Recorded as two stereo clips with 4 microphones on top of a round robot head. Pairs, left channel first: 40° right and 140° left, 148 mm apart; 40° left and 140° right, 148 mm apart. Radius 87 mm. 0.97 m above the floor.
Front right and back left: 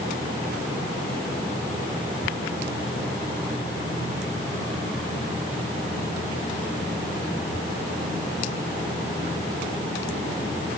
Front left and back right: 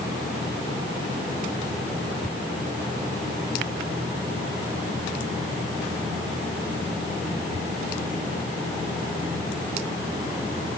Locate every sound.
Only background noise.